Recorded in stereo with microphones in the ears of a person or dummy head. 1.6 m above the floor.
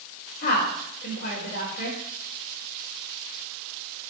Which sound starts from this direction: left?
A woman speaking, at 0.4 s.